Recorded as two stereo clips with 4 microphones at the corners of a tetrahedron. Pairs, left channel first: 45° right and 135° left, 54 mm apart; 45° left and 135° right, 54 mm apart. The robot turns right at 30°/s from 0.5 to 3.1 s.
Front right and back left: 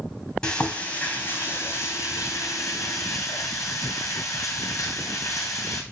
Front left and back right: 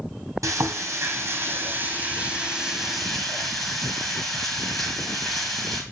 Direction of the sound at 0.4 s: 120° right.